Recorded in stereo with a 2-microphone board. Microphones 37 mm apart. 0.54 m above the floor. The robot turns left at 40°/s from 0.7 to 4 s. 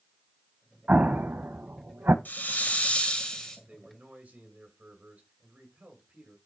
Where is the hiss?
65° left, 2.5 m; by 3.6 s 15° left, 2.5 m.